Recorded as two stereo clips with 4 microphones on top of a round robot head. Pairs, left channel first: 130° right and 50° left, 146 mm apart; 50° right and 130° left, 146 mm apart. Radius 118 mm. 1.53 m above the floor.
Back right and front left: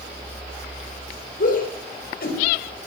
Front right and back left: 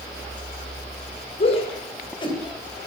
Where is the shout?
100° right, 7 m; by 2.4 s 110° right, 7.5 m.